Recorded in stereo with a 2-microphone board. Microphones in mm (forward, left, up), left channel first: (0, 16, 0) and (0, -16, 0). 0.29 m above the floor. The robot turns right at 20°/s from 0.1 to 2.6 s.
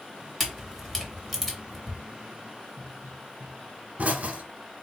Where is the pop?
60° right (ahead or behind), 0.8 m.